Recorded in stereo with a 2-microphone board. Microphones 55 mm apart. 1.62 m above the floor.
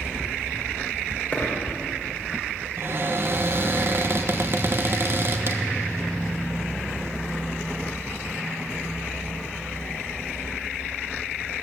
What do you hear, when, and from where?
1.3 s a dropped coin: 30° left (ahead or behind), 3 m
2.8 s a cupboard door: 45° right (ahead or behind), 1.0 m